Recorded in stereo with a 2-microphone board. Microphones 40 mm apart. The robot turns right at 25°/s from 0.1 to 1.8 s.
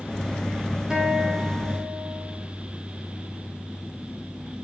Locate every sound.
0.9 s a guitar: 20° right (ahead or behind), 3.5 m; by 2.5 s 40° right (ahead or behind), 3.5 m